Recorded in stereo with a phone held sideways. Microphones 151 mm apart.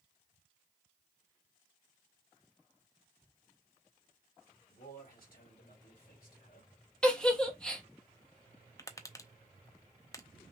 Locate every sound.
4.7 s a man speaking: 80° left, 3 m
7.0 s a giggle: 5° left (ahead or behind), 1.1 m
8.8 s tapping: 20° left (ahead or behind), 0.5 m